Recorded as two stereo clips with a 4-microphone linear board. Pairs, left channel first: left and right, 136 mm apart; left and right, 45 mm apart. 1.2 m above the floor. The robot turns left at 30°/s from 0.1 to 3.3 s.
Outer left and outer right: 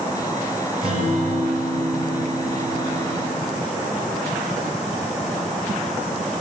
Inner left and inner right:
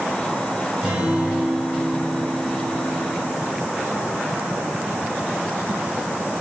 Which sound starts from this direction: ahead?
A guitar, at 0.8 s.